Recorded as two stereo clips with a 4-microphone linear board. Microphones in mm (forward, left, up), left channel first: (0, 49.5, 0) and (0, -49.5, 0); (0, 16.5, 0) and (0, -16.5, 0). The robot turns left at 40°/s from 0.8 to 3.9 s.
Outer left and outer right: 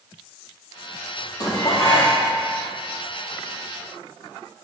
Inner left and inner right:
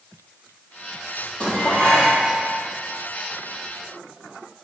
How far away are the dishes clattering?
About 2.5 m.